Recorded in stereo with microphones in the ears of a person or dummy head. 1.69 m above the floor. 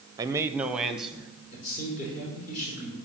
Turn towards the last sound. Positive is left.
turn(degrees=45)  # may be behind; listen again after turning